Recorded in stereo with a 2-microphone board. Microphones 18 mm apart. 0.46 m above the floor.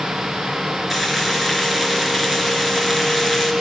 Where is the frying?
10° right (ahead or behind), 3.5 m.